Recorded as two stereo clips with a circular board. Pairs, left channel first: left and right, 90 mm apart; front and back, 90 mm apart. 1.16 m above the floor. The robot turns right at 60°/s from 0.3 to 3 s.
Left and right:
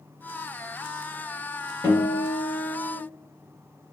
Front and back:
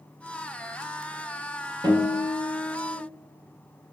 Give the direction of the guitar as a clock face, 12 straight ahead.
7 o'clock.